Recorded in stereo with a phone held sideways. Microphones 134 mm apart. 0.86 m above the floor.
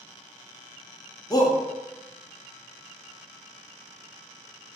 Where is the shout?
30° left (ahead or behind), 0.5 m.